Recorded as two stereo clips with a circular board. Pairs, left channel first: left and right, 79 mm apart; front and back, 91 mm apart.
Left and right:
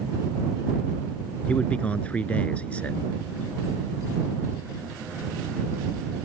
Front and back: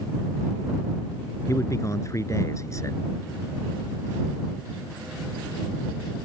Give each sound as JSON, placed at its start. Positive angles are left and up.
{"t": 1.5, "sound": "a man speaking", "azimuth_deg": 25}